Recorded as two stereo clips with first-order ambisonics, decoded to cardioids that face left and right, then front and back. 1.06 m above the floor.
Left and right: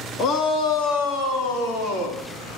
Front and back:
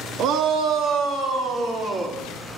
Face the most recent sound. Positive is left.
turn(degrees=100)